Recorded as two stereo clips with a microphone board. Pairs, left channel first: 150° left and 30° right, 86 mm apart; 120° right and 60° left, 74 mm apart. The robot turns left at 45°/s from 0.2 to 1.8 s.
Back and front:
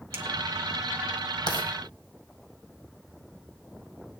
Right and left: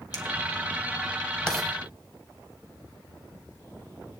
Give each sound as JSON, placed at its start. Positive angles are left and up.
{"t": 0.1, "sound": "a finger snap", "azimuth_deg": -90, "distance_m": 1.7}
{"t": 1.5, "sound": "writing", "azimuth_deg": 160, "distance_m": 1.8}